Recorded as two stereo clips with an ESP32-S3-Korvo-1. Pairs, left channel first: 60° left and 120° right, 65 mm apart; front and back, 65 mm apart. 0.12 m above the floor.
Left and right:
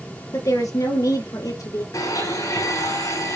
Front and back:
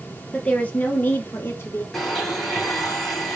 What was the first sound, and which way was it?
A woman speaking, 70° left.